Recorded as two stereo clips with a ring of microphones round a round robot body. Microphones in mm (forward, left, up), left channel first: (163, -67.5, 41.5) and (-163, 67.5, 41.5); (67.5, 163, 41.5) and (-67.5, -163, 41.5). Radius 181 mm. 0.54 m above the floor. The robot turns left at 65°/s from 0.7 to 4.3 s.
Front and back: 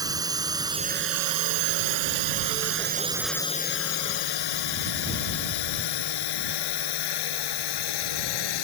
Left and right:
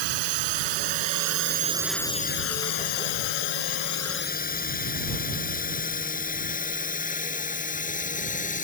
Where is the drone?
120° right; by 8.6 s straight ahead.